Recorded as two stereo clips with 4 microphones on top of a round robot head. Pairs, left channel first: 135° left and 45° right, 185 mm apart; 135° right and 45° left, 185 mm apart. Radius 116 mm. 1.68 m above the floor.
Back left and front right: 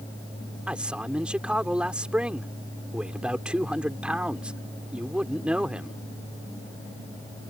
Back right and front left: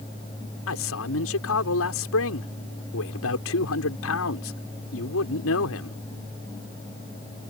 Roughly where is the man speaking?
Behind right.